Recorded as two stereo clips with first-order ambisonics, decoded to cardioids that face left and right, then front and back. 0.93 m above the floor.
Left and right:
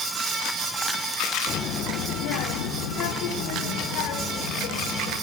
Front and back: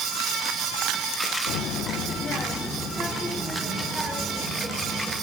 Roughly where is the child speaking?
Ahead left.